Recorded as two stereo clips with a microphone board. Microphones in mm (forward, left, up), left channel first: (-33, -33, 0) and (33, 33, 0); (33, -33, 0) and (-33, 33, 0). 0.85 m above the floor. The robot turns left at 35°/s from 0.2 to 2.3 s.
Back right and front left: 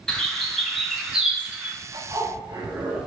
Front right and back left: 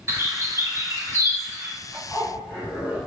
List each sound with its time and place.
0.1 s a bird: 150° left, 0.8 m; by 1.8 s 95° left, 0.8 m
1.9 s a zipper: 25° left, 1.5 m; by 3.0 s 10° left, 1.5 m